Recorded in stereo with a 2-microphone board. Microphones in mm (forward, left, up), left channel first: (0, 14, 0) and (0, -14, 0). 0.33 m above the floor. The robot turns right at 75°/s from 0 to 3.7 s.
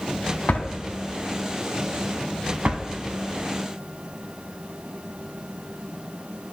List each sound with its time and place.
0.5 s a drawer: 60° left (ahead or behind), 0.9 m; by 2.8 s 55° right (ahead or behind), 0.9 m